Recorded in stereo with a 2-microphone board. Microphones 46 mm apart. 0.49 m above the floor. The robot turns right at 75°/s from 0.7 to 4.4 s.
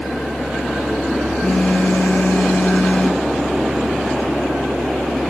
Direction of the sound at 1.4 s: 25° left.